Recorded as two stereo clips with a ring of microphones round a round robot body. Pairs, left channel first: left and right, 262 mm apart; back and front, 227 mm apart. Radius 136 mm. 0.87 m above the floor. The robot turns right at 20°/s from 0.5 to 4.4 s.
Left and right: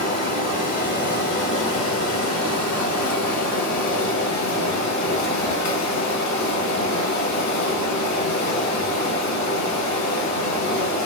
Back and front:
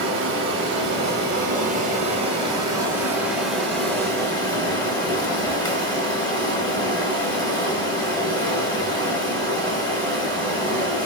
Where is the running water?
30° left, 1.2 m; by 11.1 s 110° left, 1.2 m.